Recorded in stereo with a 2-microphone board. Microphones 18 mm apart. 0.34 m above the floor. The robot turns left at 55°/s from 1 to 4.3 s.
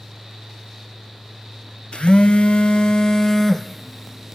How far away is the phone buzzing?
About 1.1 m.